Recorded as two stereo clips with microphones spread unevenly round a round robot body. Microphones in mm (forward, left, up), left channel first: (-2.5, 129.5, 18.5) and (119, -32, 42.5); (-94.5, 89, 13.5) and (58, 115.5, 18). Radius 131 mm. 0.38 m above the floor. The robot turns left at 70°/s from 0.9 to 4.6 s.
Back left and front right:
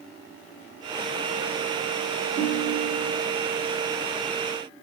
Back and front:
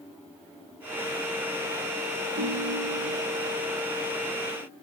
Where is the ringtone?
Straight ahead, 1.0 m; by 3.2 s 60° right, 1.0 m.